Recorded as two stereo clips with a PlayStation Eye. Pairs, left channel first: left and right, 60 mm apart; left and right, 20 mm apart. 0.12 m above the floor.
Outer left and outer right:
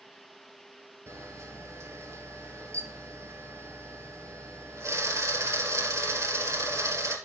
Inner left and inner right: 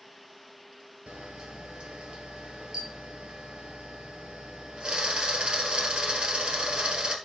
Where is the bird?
I don't hear a bird.